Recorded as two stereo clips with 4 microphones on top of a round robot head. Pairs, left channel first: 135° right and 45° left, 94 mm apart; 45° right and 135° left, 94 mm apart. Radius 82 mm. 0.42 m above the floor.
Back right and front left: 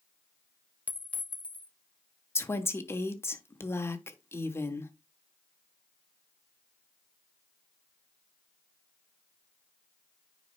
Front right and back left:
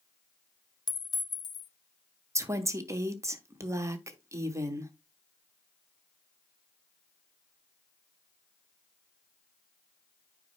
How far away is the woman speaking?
About 1.0 m.